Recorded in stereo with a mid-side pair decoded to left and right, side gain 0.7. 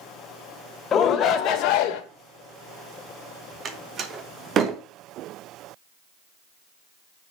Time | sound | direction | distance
0.9 | a shout | 35° left | 1.6 m
3.6 | a door slam | 40° right | 1.3 m